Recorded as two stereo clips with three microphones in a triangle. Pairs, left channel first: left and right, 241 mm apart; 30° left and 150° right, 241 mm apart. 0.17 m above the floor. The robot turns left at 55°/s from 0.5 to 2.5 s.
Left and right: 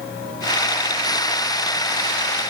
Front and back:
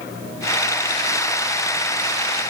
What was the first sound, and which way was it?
Only background noise.